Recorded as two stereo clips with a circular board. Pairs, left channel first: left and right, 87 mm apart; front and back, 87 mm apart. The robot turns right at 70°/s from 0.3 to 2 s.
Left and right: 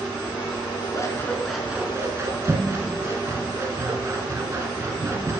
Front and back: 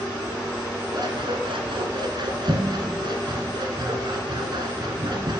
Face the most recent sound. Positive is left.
turn(degrees=-145)